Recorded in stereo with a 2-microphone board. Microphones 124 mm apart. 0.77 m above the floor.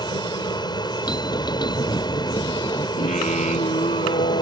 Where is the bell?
35° left (ahead or behind).